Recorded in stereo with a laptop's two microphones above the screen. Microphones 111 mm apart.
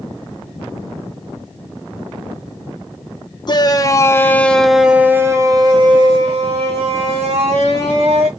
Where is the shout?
40° left (ahead or behind), 1.0 m; by 8.3 s 70° right (ahead or behind), 2.0 m.